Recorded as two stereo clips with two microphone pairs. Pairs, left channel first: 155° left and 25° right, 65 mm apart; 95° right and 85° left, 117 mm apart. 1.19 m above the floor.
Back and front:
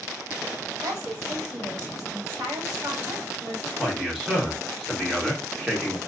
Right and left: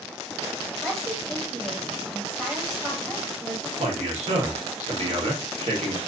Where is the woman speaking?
5° right, 1.6 m.